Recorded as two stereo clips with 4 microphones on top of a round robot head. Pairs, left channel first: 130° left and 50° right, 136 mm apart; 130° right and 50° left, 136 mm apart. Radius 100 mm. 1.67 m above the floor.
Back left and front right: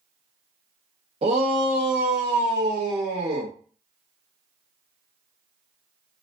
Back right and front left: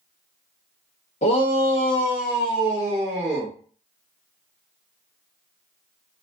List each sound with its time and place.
1.2 s a shout: 95° right, 0.6 m; by 3.5 s 20° right, 1.3 m